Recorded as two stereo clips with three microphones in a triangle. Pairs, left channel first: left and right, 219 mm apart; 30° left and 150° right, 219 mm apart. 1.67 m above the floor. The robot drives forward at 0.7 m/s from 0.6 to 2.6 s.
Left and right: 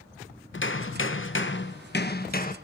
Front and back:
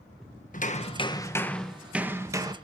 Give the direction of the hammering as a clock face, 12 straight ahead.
9 o'clock.